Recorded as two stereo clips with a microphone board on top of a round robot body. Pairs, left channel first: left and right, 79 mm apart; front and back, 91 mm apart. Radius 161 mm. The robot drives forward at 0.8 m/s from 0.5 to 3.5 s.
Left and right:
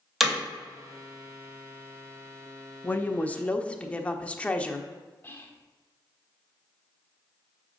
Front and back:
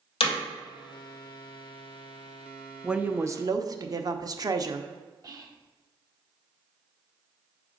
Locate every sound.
0.2 s hammering: 5° right, 2.5 m
2.8 s a woman speaking: 100° left, 0.8 m; by 4.9 s 155° left, 1.0 m
5.2 s whispering: 145° left, 1.7 m